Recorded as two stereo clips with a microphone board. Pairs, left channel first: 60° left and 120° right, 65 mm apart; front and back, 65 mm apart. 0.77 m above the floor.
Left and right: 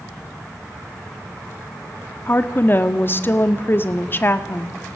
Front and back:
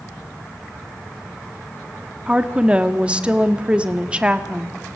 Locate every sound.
2.3 s a woman speaking: 110° left, 1.6 m